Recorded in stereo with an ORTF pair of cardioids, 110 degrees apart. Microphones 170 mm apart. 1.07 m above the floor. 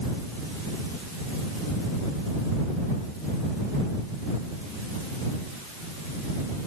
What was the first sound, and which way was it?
Only background noise.